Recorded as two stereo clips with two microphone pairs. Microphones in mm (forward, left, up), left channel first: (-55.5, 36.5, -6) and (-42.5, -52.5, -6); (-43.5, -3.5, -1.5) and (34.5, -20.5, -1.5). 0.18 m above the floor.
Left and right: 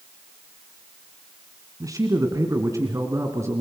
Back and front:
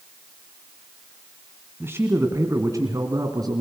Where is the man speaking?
60° right, 1.8 m; by 3.6 s 30° right, 2.5 m.